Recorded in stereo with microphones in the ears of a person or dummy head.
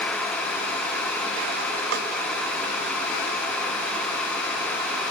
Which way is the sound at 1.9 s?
60° right (ahead or behind).